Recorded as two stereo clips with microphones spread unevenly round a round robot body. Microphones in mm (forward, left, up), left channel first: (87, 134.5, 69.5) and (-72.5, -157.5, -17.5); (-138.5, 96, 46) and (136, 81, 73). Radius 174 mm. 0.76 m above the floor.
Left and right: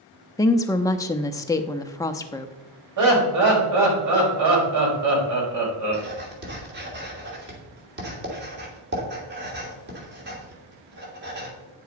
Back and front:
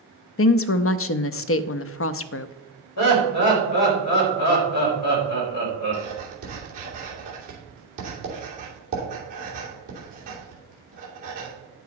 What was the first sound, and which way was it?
A woman speaking, 150° left.